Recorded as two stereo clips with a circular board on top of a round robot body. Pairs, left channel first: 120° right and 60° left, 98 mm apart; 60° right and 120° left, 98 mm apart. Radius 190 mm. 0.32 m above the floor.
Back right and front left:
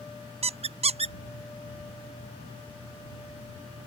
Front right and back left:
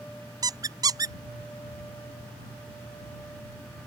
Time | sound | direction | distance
0.4 | a squeak | 65° left | ?